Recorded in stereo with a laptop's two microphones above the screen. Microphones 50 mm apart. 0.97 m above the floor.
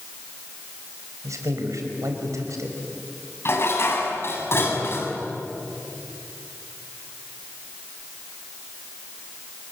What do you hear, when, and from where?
1.2 s a man speaking: 85° right, 4.5 m
3.5 s dishes clattering: 50° left (ahead or behind), 5.5 m